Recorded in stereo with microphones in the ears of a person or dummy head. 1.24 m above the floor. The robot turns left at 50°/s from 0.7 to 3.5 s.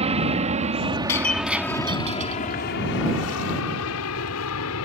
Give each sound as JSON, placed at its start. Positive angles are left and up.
{"t": 0.0, "sound": "an aircraft", "side_deg": -35}
{"t": 1.1, "sound": "breaking glass", "side_deg": 15}